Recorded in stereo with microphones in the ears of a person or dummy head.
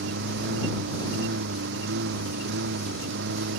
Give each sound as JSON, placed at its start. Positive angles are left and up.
{"t": 0.0, "sound": "a lawn mower", "side_deg": -60}